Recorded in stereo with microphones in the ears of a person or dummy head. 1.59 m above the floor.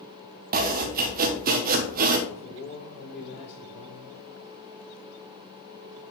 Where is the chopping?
40° right (ahead or behind), 0.7 m.